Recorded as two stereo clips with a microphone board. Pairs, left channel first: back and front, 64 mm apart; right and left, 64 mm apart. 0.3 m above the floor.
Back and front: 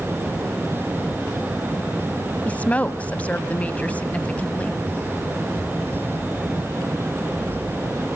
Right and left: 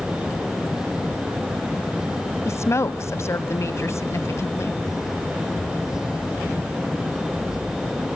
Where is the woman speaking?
115° right, 1.5 m.